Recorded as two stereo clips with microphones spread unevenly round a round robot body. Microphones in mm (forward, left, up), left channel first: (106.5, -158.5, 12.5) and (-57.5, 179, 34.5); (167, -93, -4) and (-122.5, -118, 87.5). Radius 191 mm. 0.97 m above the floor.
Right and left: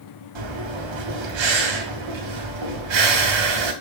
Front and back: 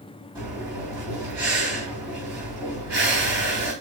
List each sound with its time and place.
0.3 s breathing: 105° left, 3 m